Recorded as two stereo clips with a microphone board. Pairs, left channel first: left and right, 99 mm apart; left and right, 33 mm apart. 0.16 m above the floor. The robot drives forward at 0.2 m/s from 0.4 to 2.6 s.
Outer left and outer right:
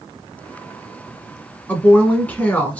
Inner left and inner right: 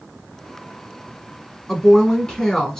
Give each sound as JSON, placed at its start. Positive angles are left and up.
{"t": 1.7, "sound": "a woman speaking", "side_deg": 15, "distance_m": 1.2}